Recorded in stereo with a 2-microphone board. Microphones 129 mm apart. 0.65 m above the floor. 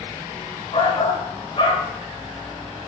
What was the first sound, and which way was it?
A shout, 50° left (ahead or behind).